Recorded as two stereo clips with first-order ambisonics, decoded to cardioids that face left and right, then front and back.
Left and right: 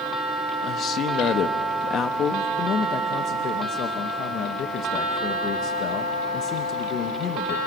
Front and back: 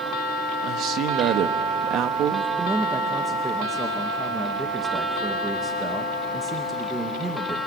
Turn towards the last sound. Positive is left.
turn(degrees=110)